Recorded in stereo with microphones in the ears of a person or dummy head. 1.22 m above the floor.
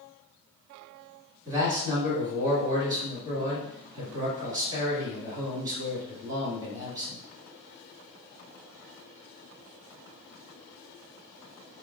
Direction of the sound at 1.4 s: 20° right (ahead or behind).